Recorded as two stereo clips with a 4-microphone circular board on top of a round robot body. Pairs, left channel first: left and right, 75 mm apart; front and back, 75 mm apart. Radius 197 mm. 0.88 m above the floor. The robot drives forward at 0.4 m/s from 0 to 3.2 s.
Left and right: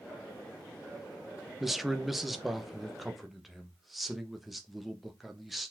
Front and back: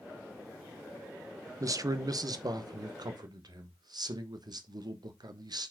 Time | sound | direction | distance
1.6 | a man speaking | 175° right | 0.9 m